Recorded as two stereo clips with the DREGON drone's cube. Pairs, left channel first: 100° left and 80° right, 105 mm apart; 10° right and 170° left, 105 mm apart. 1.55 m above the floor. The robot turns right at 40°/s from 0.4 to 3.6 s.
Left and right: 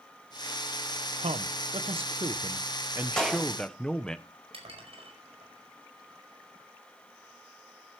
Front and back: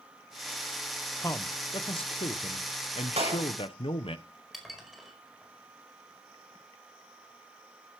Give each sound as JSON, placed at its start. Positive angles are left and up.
{"t": 1.2, "sound": "a man speaking", "azimuth_deg": -75, "distance_m": 1.2}
{"t": 3.2, "sound": "a clap", "azimuth_deg": -175, "distance_m": 8.0}
{"t": 4.5, "sound": "dishes clattering", "azimuth_deg": -100, "distance_m": 5.0}